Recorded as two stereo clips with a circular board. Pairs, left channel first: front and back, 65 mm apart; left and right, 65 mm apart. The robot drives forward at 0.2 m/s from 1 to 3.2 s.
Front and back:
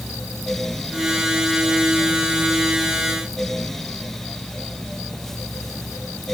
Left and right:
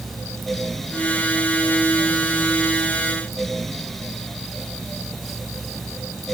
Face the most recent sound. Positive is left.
No sound to turn to.